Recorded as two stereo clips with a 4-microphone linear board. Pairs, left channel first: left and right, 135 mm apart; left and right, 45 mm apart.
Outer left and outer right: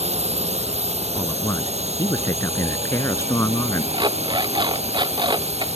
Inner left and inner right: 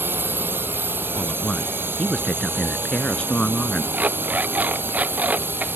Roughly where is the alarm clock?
Right.